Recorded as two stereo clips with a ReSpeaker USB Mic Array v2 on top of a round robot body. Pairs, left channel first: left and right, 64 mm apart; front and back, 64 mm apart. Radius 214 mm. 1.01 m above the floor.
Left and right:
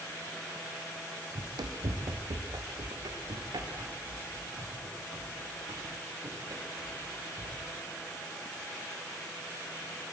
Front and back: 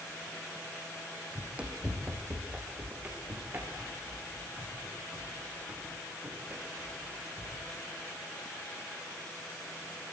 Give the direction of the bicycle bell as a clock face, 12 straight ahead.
No bicycle bell in this recording.